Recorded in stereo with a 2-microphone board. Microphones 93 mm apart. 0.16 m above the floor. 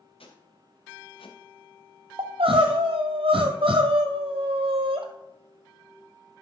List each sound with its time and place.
0.2 s footsteps: 85° left, 2.5 m; by 2.8 s 20° right (ahead or behind), 1.2 m
2.2 s crying: 85° right, 1.1 m